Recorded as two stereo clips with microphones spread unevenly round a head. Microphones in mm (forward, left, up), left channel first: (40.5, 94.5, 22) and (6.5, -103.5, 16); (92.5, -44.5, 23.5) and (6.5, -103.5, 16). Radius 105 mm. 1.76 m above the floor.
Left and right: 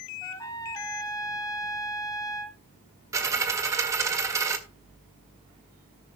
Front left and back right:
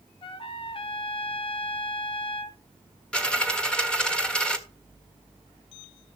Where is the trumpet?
10° left, 1.3 m.